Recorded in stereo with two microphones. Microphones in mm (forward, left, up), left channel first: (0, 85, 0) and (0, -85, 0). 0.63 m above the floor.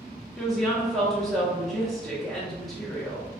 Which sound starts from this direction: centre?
A woman speaking, at 0.4 s.